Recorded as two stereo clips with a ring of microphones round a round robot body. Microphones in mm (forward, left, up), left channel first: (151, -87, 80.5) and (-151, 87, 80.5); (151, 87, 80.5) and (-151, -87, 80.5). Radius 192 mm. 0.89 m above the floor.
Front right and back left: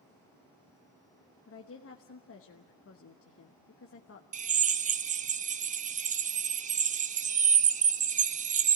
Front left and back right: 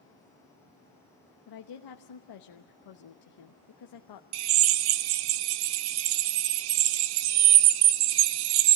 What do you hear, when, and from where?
1.5 s a woman speaking: 20° left, 1.1 m
4.3 s a drill: 140° right, 0.7 m